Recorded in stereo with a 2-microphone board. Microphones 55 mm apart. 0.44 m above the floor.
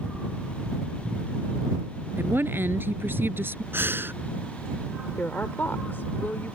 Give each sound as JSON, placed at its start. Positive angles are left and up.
{"t": 2.2, "sound": "a woman speaking", "side_deg": -45}
{"t": 3.7, "sound": "breathing", "side_deg": -45}
{"t": 5.2, "sound": "a woman speaking", "side_deg": 40}